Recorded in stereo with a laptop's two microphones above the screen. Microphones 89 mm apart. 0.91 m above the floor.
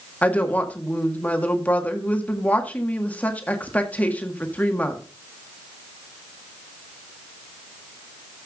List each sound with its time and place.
0.2 s a woman speaking: 15° left (ahead or behind), 1.6 m